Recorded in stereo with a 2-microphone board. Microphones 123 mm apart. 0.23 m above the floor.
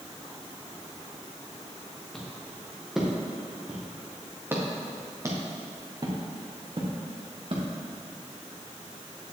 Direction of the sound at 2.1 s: 5° left (ahead or behind).